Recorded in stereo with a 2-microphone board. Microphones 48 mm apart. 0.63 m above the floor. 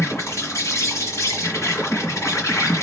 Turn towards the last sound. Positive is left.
turn(degrees=85)